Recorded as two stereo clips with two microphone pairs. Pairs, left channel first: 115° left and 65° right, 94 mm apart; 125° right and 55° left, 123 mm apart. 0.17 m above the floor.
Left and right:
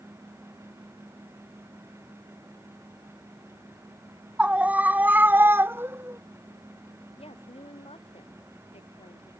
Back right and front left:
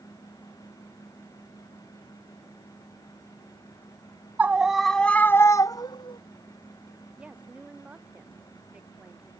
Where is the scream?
5° right; by 6.2 s 115° right.